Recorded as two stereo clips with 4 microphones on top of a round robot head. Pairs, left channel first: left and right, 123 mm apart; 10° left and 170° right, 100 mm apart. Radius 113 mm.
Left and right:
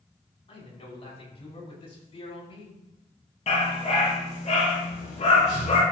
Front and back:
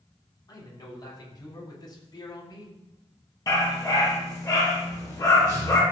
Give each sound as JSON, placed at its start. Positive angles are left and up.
{"t": 0.5, "sound": "a man speaking", "azimuth_deg": 55, "distance_m": 5.0}
{"t": 3.5, "sound": "a dog barking", "azimuth_deg": 65, "distance_m": 5.0}